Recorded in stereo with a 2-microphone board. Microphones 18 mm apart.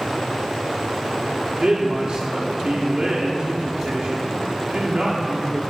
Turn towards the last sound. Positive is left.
turn(degrees=-45)  # may be behind; listen again after turning